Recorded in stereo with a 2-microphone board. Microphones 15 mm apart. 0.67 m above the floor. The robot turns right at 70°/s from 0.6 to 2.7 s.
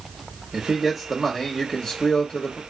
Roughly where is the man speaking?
Ahead right.